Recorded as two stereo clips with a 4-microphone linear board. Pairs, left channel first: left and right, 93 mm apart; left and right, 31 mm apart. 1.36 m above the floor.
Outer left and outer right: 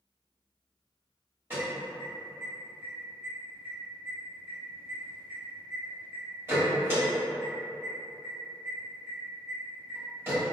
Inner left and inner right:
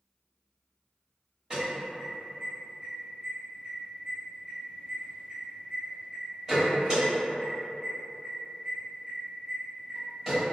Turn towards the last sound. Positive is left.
turn(degrees=-25)  # may be behind; listen again after turning